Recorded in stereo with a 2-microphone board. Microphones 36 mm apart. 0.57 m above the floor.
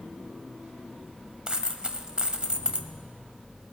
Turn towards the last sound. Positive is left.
turn(degrees=-25)  # may be behind; listen again after turning